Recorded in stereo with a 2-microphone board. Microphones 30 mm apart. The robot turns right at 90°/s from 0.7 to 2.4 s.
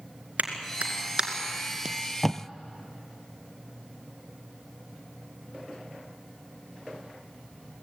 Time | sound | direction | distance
0.4 | a clap | 60° right (ahead or behind) | 2.5 m
1.9 | tape being pulled | 30° right (ahead or behind) | 0.8 m